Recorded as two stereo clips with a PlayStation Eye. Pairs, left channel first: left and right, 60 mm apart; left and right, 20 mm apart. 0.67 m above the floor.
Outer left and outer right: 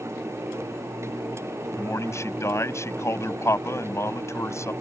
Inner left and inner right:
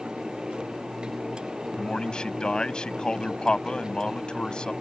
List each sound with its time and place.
1.8 s a man speaking: 55° left (ahead or behind)